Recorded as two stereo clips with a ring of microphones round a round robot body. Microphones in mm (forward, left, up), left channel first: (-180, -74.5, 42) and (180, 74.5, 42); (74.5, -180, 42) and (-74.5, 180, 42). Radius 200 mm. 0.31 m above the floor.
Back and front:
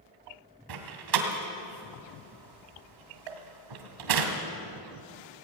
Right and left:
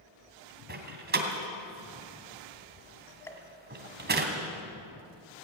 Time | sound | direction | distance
0.7 | a door slam | 50° left | 2.5 m
3.3 | a pop | 15° left | 1.6 m